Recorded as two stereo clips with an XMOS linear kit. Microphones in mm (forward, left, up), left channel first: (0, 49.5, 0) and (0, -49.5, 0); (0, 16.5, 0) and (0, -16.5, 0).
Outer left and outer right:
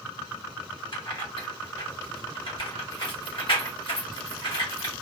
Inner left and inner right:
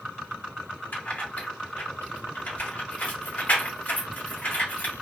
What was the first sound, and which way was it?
Keys jangling, 60° left (ahead or behind).